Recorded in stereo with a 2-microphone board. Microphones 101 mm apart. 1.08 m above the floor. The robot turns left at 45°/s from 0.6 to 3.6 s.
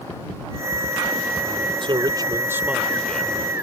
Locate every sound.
1.8 s a man speaking: 125° right; by 3.4 s 160° left